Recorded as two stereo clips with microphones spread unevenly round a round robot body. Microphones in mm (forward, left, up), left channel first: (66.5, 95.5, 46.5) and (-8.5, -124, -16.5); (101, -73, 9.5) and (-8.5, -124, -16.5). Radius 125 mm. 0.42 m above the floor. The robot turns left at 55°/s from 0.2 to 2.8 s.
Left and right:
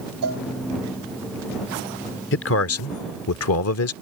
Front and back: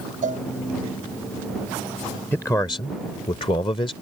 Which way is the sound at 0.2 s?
140° right.